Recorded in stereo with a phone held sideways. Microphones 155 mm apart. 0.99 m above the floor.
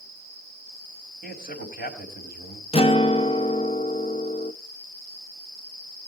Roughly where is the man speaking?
Left.